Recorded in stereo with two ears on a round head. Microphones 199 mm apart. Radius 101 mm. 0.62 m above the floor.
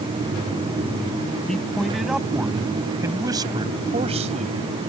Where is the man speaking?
5° left (ahead or behind); by 4.6 s 35° right (ahead or behind).